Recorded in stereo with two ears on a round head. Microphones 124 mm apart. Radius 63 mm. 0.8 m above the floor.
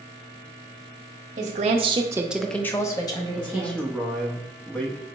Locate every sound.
1.4 s a woman speaking: 55° right (ahead or behind), 0.9 m; by 3.9 s 35° left (ahead or behind), 1.6 m
3.4 s a man speaking: 10° left (ahead or behind), 0.8 m